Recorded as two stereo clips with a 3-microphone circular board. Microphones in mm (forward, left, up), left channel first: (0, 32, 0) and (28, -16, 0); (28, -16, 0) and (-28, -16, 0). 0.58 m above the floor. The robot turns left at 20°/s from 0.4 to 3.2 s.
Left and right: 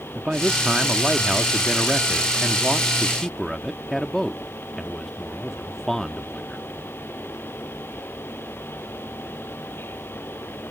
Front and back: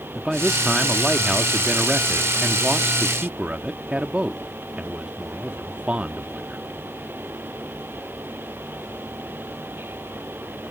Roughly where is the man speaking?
Right.